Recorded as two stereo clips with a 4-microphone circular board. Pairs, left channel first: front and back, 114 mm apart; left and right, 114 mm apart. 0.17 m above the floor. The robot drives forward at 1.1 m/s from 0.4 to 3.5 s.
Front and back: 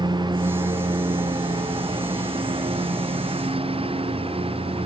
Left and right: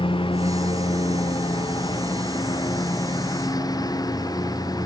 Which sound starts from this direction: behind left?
A lawn mower, at 0.0 s.